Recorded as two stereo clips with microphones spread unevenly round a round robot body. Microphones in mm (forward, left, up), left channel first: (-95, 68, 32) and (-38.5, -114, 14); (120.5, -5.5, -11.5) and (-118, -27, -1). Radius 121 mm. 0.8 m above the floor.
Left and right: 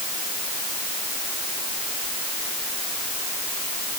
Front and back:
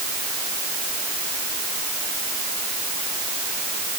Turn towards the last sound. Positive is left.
No sound to turn to.